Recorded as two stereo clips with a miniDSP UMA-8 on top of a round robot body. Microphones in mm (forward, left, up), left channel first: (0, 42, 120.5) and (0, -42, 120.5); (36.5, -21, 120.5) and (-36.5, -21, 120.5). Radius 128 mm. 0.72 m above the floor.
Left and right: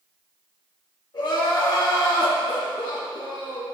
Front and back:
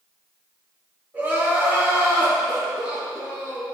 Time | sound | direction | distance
1.1 | crying | 115° left | 3 m